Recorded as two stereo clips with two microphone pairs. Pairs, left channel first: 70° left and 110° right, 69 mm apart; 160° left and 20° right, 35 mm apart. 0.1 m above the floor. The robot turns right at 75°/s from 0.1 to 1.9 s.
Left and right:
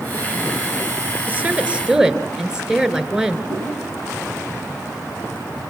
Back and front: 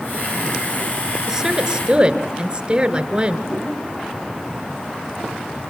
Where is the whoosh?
140° right, 10 m.